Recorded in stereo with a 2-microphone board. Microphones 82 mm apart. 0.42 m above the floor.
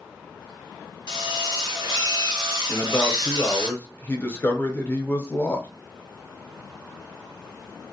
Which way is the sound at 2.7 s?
25° left (ahead or behind).